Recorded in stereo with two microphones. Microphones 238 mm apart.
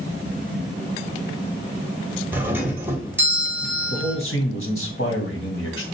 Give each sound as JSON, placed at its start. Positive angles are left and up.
{"t": 2.3, "sound": "a doorbell", "side_deg": -10, "distance_m": 1.5}
{"t": 3.9, "sound": "a man speaking", "side_deg": 60, "distance_m": 2.0}